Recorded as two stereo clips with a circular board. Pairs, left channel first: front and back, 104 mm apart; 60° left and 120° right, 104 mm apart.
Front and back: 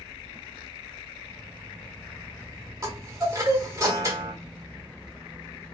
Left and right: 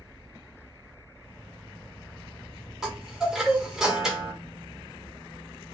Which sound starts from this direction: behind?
A chime, at 2.8 s.